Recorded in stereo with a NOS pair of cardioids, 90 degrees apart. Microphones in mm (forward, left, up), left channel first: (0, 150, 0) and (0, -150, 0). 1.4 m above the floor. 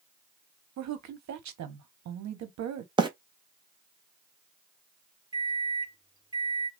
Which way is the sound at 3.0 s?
15° right.